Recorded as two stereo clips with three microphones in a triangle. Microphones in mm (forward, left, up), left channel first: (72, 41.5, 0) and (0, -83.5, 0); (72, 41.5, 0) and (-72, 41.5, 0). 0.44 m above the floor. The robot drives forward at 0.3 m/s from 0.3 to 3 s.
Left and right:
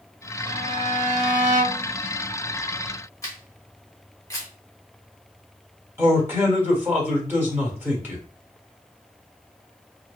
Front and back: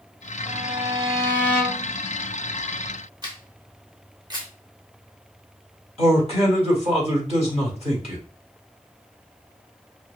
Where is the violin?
100° right, 0.6 m; by 1.9 s 140° right, 0.8 m.